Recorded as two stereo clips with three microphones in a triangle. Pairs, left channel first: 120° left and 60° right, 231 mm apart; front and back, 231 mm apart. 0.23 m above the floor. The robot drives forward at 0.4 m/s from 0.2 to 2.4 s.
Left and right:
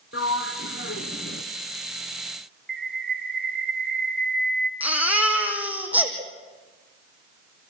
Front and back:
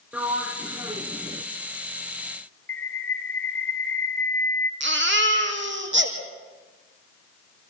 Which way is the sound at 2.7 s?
80° right.